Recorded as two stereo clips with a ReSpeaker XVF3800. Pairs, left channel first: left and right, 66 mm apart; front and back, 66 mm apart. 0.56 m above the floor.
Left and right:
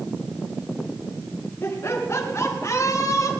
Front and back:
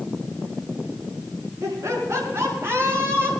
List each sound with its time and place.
1.6 s laughter: 140° left, 6.5 m; by 3.3 s 125° left, 6 m